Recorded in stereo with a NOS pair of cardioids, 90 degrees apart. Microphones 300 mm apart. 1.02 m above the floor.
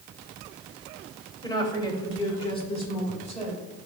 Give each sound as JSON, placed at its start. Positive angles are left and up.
{"t": 1.4, "sound": "a woman speaking", "azimuth_deg": 15, "distance_m": 2.5}